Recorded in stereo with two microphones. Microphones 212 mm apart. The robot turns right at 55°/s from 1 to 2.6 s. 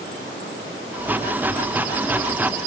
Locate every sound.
Only background noise.